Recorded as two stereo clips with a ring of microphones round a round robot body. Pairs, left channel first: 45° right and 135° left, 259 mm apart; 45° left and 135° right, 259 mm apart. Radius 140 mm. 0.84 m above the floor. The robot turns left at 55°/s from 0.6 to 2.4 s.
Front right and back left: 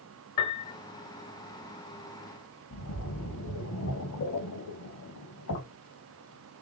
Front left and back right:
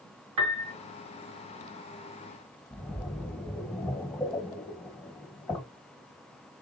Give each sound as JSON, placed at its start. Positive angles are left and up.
{"t": 0.4, "sound": "a piano", "azimuth_deg": -115, "distance_m": 0.6}
{"t": 2.7, "sound": "a splash", "azimuth_deg": -35, "distance_m": 1.9}